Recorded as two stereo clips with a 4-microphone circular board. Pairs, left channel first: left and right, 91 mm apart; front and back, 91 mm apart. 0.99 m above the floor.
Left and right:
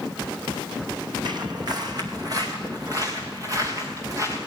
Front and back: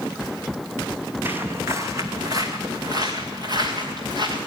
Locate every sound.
1.2 s footsteps: 115° right, 2.0 m; by 4.4 s 145° right, 5 m